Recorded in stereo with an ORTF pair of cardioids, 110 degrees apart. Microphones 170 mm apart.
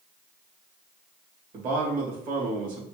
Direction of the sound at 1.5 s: 55° right.